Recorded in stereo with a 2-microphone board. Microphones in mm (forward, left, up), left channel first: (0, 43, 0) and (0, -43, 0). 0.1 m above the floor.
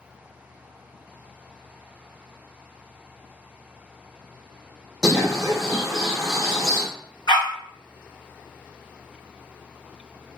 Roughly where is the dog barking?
Left.